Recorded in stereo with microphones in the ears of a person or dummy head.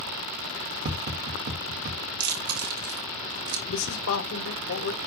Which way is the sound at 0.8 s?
50° right (ahead or behind).